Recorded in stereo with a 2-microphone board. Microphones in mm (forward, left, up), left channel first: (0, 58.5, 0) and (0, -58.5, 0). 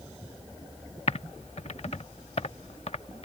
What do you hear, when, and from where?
1.1 s typing on a keyboard: 65° left (ahead or behind)